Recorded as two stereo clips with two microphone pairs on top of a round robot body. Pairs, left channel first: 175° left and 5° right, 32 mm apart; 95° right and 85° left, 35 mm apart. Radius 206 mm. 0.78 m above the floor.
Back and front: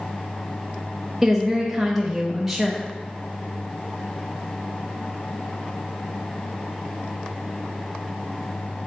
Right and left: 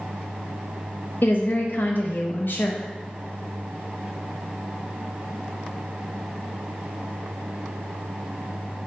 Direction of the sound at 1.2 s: 85° right.